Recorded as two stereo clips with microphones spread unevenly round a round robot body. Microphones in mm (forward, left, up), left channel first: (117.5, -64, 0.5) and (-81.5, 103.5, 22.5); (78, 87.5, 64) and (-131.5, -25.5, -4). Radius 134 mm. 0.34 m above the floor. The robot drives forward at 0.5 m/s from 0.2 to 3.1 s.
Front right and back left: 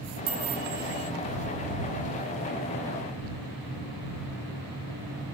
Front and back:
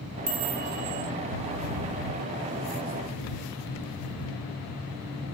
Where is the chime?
165° right, 2 m; by 1.1 s 170° right, 2.5 m.